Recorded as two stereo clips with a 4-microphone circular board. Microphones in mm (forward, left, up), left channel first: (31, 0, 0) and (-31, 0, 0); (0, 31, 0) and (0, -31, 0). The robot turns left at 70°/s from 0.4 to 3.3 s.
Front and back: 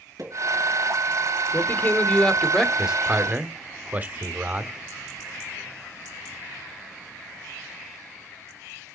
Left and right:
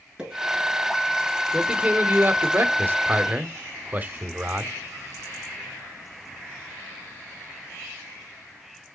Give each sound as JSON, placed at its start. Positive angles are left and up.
{"t": 0.2, "sound": "a pop", "azimuth_deg": -165, "distance_m": 5.5}
{"t": 1.5, "sound": "a man speaking", "azimuth_deg": -10, "distance_m": 1.1}